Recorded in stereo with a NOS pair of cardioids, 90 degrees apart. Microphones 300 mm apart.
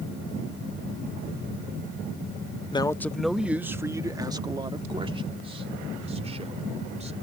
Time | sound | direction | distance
2.7 | a man speaking | 15° left | ?